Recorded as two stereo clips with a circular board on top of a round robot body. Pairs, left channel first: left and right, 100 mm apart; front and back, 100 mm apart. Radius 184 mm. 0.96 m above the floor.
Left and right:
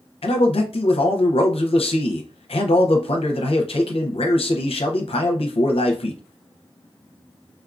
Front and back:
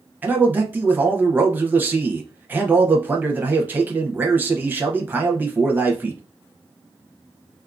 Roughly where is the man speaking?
Left.